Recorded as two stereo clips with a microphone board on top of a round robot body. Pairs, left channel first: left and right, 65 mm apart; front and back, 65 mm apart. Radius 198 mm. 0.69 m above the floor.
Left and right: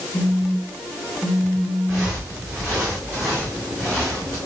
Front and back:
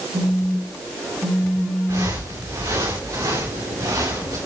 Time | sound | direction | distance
0.1 | a phone buzzing | 175° left | 7 m
1.9 | footsteps | straight behind | 5.5 m